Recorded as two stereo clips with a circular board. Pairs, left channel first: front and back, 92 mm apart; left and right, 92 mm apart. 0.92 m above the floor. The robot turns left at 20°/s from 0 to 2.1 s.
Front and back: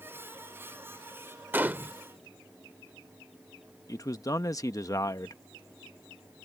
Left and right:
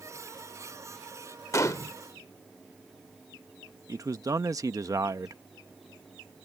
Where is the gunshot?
125° left; by 2.0 s 115° left.